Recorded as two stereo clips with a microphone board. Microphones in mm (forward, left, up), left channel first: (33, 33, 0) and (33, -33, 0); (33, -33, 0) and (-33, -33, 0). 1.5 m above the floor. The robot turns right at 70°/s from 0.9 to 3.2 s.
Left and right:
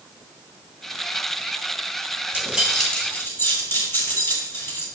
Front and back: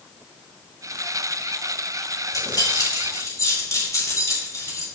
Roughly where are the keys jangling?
Ahead.